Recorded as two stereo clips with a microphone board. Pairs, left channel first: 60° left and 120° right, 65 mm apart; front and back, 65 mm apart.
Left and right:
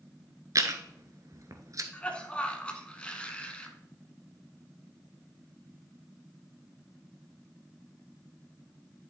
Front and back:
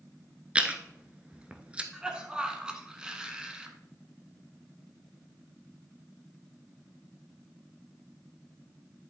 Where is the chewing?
110° right, 0.9 m.